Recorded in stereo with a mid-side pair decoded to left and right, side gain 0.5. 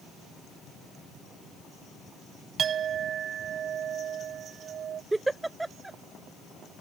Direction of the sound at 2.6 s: 55° right.